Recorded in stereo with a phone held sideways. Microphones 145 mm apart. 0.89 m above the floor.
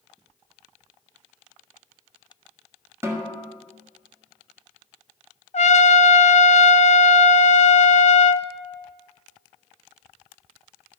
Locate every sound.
3.0 s a snare drum: 20° right (ahead or behind), 1.6 m
5.5 s a trumpet: 55° left (ahead or behind), 0.6 m